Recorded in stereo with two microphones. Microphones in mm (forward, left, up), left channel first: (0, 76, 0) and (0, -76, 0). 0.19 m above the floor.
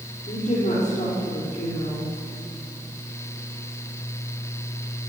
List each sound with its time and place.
0.3 s a woman speaking: 55° left (ahead or behind), 6 m